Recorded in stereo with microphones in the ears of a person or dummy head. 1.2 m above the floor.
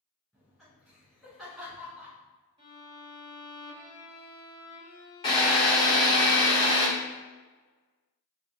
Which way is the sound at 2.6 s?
25° right (ahead or behind).